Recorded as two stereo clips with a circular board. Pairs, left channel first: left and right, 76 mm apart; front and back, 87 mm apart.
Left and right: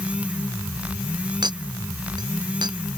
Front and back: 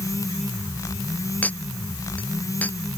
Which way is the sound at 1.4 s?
75° right.